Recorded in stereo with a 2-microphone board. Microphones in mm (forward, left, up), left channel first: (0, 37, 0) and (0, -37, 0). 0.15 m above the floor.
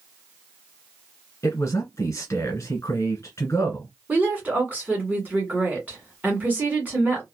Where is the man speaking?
40° left (ahead or behind), 1.5 m.